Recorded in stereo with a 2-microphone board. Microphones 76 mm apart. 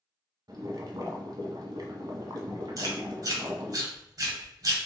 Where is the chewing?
50° right (ahead or behind), 1.9 m.